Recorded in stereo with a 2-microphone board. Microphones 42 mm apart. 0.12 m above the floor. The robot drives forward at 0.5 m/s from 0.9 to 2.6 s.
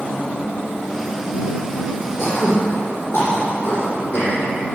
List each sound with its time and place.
2.2 s throat clearing: 55° left (ahead or behind), 6 m